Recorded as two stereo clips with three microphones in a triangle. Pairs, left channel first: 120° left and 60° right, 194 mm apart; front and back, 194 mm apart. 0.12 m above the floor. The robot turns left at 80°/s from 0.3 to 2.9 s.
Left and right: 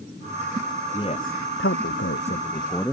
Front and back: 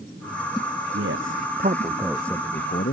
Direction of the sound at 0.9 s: 170° right.